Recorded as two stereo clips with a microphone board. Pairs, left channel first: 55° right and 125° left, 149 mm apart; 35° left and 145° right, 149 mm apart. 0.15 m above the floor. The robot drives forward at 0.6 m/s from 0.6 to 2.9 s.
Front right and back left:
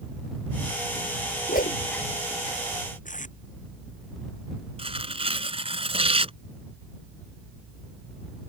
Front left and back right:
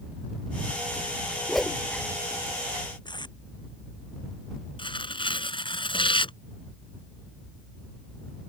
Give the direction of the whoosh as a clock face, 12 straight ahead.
2 o'clock.